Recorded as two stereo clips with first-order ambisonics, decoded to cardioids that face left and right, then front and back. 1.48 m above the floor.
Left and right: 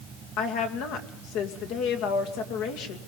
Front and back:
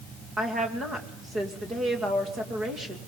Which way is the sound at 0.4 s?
110° left.